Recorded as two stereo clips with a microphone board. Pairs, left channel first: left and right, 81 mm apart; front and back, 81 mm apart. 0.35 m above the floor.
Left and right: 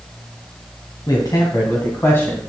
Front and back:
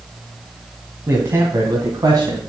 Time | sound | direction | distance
1.1 | a man speaking | 120° left | 2.5 m